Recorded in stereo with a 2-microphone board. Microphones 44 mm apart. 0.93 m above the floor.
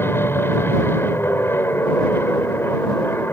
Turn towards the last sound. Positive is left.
turn(degrees=60)  # may be behind; listen again after turning